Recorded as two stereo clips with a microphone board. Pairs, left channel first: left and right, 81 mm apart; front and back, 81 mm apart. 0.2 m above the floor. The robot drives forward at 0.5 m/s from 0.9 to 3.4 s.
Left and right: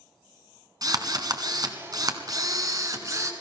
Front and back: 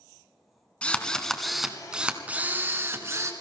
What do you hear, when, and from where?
0.8 s a drill: 75° right, 1.2 m; by 3.3 s 135° right, 1.5 m